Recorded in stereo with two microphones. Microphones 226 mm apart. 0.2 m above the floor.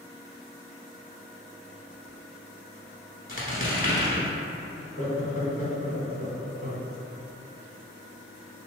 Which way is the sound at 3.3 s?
40° left (ahead or behind).